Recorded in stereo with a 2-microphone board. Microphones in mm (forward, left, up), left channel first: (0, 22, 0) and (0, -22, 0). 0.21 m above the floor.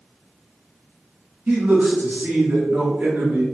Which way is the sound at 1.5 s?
35° right (ahead or behind).